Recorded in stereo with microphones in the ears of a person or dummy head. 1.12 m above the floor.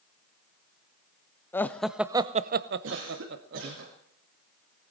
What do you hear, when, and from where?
1.5 s laughter: 15° left (ahead or behind), 0.8 m; by 3.8 s 55° right (ahead or behind), 1.1 m
2.8 s a cough: 60° right (ahead or behind), 2 m